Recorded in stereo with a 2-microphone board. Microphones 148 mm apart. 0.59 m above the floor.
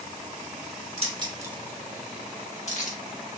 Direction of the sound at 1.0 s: 45° right (ahead or behind).